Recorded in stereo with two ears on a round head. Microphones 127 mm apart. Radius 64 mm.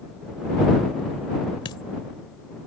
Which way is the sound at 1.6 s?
35° left (ahead or behind).